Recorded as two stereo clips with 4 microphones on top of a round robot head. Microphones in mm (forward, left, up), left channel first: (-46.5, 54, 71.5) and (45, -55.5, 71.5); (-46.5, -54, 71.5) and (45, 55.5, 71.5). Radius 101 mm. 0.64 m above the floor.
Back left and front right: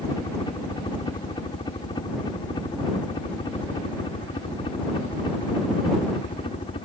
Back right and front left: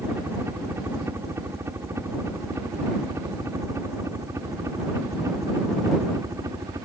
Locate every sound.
0.0 s a helicopter: 110° left; by 6.9 s 105° left